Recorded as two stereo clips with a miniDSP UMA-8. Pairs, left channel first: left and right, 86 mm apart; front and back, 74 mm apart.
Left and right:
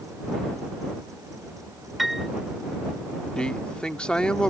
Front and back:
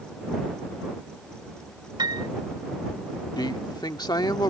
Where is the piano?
Straight behind.